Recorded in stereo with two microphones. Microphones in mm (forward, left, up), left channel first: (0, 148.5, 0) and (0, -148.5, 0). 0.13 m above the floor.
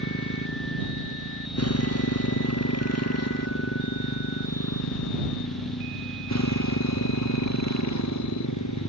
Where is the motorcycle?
50° left (ahead or behind); by 8.9 s 65° left (ahead or behind).